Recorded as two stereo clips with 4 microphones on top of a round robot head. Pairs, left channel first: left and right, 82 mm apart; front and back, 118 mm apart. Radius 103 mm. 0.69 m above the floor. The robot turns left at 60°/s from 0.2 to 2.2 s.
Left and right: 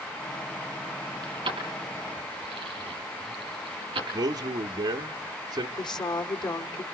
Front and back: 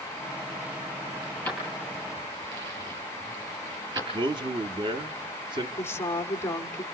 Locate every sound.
1.2 s keys jangling: 65° right, 5.5 m; by 4.0 s 120° right, 5.5 m
4.1 s a man speaking: 130° right, 1.0 m
5.8 s a woman speaking: 70° left, 2 m